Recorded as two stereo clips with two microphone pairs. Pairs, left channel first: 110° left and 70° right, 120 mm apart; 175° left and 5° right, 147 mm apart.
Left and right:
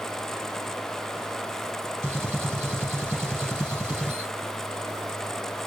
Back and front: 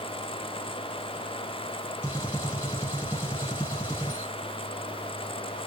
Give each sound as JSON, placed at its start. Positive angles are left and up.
{"t": 2.0, "sound": "a gunshot", "azimuth_deg": -120, "distance_m": 1.7}